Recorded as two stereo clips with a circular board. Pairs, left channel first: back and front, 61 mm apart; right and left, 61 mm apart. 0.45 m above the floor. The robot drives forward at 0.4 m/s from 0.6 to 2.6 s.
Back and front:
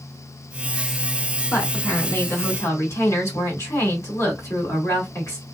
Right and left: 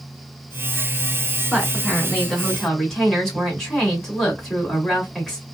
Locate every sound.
1.5 s a woman speaking: 170° right, 1.7 m; by 5.4 s 175° right, 2 m